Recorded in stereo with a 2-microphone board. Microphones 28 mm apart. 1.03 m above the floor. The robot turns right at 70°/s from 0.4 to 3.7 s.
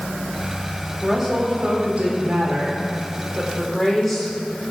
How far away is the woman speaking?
About 3.5 m.